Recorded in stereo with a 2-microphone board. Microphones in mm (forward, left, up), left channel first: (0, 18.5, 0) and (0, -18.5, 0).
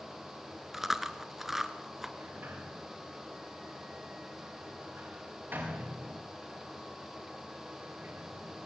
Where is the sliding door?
60° right (ahead or behind), 8 m.